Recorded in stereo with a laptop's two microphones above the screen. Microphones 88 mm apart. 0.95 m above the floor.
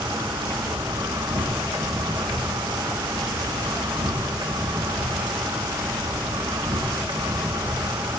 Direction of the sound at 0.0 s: 60° right (ahead or behind).